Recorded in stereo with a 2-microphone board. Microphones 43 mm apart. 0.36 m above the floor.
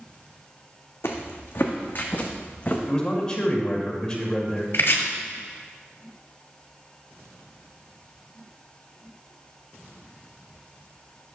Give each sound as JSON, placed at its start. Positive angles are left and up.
{"t": 1.0, "sound": "footsteps", "side_deg": 60, "distance_m": 1.3}
{"t": 2.9, "sound": "a man speaking", "side_deg": 20, "distance_m": 1.6}
{"t": 4.7, "sound": "chopping", "side_deg": 60, "distance_m": 1.3}